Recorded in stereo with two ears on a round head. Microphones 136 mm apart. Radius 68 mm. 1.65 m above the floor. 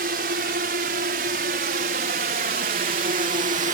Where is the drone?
65° right (ahead or behind); by 3.8 s 50° right (ahead or behind).